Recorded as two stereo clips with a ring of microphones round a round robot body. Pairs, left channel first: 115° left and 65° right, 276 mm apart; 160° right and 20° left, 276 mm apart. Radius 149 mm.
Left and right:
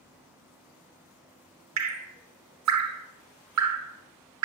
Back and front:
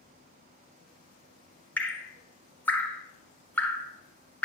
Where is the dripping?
75° right, 1.2 m.